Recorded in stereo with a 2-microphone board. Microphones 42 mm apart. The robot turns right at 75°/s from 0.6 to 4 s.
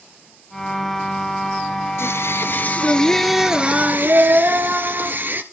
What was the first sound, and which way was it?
Singing, 80° left.